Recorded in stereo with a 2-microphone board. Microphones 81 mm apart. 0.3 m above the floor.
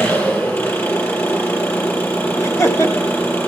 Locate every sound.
0.0 s an engine running: 25° left (ahead or behind), 4.5 m
2.4 s laughter: 35° left (ahead or behind), 1.1 m